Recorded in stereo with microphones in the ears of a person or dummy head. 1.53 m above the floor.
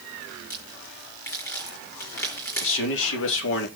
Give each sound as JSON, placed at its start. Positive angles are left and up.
{"t": 0.5, "sound": "a crack", "side_deg": 15, "distance_m": 5.0}
{"t": 2.6, "sound": "a man speaking", "side_deg": 75, "distance_m": 3.0}